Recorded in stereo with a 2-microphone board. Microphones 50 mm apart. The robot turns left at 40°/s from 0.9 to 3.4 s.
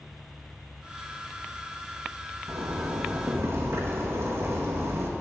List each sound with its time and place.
2.5 s a zipper: 80° right, 1.9 m; by 5.1 s 120° right, 1.9 m